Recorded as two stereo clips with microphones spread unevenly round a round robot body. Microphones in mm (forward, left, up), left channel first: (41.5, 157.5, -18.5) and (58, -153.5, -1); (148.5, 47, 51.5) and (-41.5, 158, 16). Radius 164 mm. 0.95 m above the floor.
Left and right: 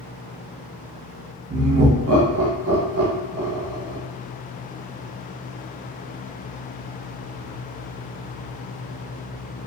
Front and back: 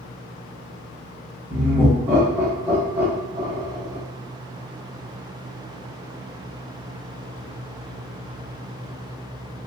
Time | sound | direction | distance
1.5 | laughter | 135° right | 0.7 m